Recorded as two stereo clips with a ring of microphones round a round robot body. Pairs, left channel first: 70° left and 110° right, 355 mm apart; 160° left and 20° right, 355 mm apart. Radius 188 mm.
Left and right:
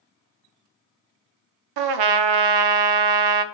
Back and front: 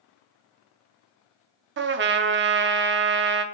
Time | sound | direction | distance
1.8 | a trumpet | 85° right | 0.6 m